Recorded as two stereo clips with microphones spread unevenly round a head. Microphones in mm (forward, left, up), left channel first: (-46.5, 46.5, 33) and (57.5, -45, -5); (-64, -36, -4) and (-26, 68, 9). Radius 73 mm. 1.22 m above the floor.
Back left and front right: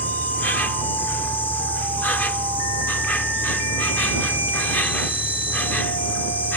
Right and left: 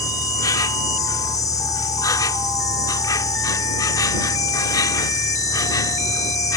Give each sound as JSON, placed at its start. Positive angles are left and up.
{"t": 0.0, "sound": "an insect", "azimuth_deg": -165}